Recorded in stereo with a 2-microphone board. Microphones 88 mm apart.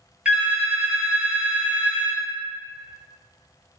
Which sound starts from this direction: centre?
A phone ringing, at 0.2 s.